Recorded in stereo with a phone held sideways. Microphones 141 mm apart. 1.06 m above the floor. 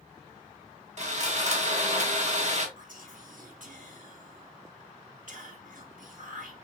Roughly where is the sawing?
Right.